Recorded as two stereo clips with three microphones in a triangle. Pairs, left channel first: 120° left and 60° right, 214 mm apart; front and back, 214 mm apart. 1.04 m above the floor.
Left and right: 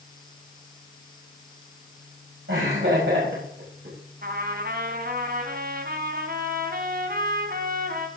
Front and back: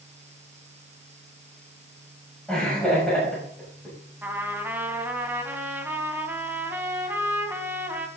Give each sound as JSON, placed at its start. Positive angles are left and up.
{"t": 2.5, "sound": "laughter", "azimuth_deg": -85, "distance_m": 7.0}
{"t": 4.2, "sound": "a trumpet", "azimuth_deg": -100, "distance_m": 2.0}